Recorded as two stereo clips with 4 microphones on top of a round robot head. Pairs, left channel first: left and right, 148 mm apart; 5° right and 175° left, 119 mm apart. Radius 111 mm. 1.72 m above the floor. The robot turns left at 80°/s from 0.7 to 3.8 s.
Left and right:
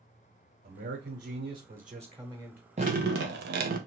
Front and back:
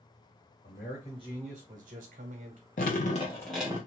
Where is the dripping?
30° right, 0.6 m; by 3.8 s 110° right, 0.6 m.